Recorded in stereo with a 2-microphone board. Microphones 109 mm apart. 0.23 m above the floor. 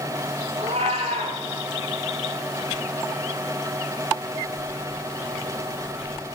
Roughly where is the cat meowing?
Right.